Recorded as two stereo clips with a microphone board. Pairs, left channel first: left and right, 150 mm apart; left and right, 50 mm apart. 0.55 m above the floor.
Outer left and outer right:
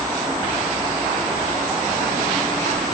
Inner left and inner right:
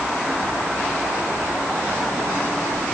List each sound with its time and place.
Only background noise.